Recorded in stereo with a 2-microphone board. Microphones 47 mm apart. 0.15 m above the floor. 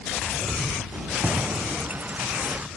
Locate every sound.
0.9 s keys jangling: 30° right (ahead or behind)